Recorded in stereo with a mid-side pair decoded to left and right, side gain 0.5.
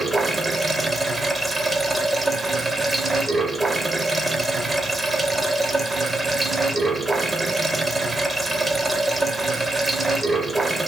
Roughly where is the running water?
Ahead.